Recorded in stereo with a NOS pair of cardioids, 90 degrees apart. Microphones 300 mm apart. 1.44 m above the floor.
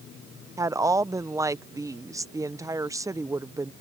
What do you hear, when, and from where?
0.6 s a woman speaking: 10° right